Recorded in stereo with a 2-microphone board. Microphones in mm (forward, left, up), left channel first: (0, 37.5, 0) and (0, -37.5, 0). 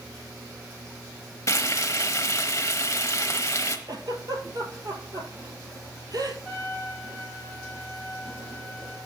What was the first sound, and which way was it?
Frying, 45° left (ahead or behind).